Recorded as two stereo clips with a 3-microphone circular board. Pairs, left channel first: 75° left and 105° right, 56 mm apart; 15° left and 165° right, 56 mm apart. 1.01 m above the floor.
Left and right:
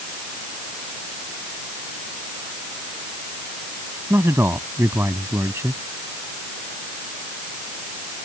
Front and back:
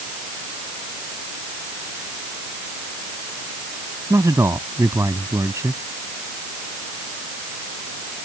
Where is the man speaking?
145° right.